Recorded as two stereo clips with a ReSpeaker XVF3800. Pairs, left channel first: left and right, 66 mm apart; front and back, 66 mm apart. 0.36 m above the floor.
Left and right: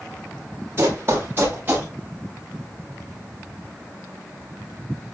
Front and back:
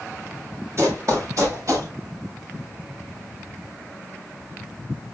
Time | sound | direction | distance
0.8 | running footsteps | 140° right | 4.5 m